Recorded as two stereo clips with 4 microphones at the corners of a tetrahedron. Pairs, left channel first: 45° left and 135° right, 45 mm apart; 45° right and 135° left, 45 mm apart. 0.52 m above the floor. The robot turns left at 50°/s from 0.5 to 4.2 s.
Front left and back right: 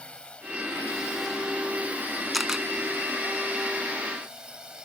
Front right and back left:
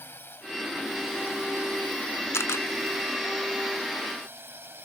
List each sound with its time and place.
0.0 s a drone: 20° right; by 4.8 s 155° left
2.3 s a camera shutter: 45° right; by 2.7 s 60° right